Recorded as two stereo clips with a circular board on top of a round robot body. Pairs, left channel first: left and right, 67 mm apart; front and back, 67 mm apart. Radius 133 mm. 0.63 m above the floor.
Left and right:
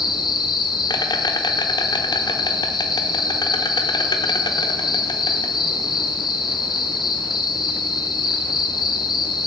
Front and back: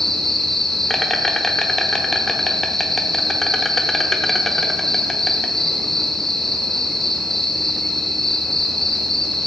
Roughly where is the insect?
Left.